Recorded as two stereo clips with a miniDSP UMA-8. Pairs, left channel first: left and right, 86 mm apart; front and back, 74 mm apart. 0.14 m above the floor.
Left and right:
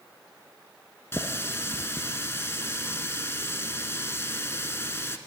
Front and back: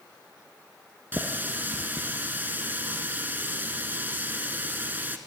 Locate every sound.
1.1 s a running tap: 130° left, 0.9 m